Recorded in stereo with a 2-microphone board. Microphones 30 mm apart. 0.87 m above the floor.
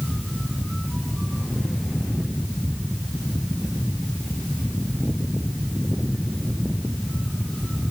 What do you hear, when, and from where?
Only background noise.